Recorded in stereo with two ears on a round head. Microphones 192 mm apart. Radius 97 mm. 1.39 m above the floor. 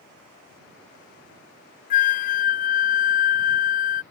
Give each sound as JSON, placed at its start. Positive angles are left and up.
{"t": 1.9, "sound": "a flute", "side_deg": 40}